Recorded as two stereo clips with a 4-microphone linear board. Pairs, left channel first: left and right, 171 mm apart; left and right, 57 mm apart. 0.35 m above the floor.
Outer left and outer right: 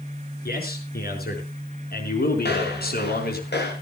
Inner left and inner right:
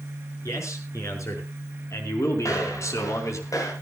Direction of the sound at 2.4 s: 80° left.